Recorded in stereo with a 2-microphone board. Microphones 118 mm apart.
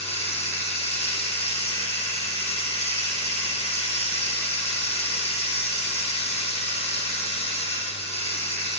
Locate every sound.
0.0 s running water: 60° left (ahead or behind), 1.3 m